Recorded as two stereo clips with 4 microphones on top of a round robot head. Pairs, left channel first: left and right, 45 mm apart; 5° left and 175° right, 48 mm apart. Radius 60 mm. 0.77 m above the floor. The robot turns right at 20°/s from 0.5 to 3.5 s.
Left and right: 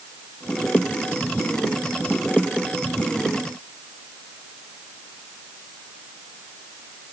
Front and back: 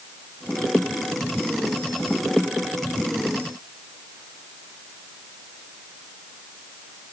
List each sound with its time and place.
Only background noise.